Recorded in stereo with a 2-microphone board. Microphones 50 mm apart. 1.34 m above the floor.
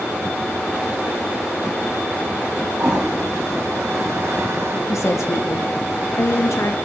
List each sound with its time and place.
2.8 s a toilet flushing: 70° right (ahead or behind), 1.1 m
4.9 s a woman speaking: 70° left (ahead or behind), 0.7 m